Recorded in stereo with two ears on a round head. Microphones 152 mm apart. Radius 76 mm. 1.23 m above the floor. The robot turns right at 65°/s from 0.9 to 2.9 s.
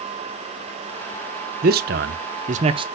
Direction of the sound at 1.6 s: 55° right (ahead or behind).